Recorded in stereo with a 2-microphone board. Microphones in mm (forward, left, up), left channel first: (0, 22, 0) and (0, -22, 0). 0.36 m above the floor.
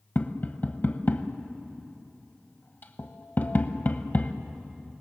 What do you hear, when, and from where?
0.1 s tapping: 45° left (ahead or behind), 1.0 m